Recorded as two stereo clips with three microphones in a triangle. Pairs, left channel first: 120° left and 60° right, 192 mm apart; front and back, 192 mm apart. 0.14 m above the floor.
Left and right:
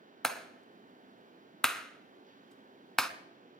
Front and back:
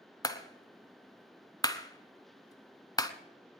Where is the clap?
35° left, 0.8 m.